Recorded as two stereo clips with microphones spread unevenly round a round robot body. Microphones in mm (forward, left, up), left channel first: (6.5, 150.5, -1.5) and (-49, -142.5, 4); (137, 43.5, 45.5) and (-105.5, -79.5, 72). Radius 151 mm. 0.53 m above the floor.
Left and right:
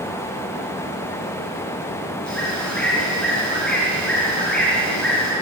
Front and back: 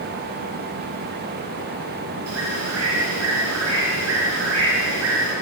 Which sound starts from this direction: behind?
A bird, at 2.3 s.